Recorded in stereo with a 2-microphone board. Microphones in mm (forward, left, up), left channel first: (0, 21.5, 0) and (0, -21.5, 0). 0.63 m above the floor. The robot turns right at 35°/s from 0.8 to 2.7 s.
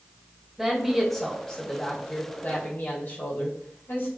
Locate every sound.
0.6 s a woman speaking: 10° right, 2 m; by 4.1 s 60° left, 2 m